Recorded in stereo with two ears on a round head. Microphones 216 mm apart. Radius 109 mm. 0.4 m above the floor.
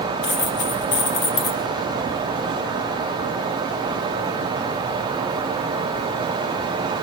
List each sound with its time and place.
0.2 s a dropped coin: 50° left (ahead or behind), 5 m